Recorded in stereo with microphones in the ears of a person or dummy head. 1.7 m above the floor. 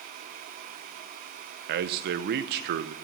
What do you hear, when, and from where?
1.7 s a man speaking: 55° right (ahead or behind), 0.9 m